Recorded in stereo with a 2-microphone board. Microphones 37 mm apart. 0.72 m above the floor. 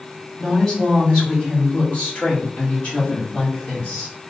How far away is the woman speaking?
About 1.5 m.